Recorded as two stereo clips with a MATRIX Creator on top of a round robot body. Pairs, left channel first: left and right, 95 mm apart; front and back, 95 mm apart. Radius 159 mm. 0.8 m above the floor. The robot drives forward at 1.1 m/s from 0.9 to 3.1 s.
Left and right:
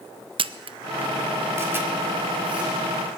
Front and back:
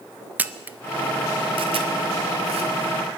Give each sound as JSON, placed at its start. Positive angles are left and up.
{"t": 0.4, "sound": "a camera shutter", "azimuth_deg": -110, "distance_m": 0.5}